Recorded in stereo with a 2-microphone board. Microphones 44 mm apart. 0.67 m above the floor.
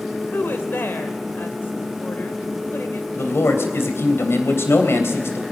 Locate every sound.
0.3 s a woman speaking: 60° left (ahead or behind), 2.5 m
3.2 s a man speaking: 75° left (ahead or behind), 3 m